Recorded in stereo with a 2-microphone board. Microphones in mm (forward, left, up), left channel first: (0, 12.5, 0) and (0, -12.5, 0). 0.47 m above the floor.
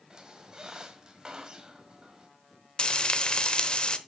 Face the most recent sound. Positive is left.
turn(degrees=35)  # may be behind; listen again after turning